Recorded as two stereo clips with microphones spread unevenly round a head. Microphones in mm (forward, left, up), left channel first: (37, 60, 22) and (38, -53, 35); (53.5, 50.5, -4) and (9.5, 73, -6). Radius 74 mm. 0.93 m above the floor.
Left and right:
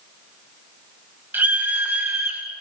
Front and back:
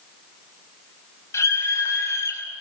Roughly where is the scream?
Ahead.